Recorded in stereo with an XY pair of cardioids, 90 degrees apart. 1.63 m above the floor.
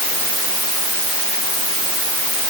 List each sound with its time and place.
Only background noise.